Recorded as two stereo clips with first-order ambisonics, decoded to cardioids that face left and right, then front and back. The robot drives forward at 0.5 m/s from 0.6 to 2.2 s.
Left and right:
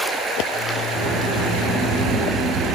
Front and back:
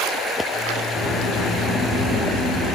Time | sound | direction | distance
0.9 | a sliding door | 70° right | 2.5 m